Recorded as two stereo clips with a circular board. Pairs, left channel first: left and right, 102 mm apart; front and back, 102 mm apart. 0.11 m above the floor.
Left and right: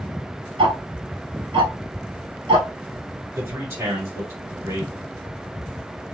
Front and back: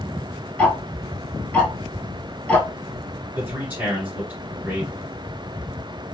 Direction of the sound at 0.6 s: 70° right.